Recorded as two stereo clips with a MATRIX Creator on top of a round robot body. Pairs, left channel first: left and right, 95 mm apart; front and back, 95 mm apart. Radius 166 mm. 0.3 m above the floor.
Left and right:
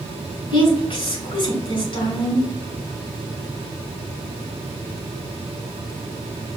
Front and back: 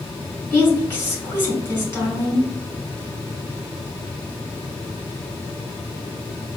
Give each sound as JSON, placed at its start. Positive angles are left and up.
{"t": 0.5, "sound": "a woman speaking", "azimuth_deg": 65, "distance_m": 2.5}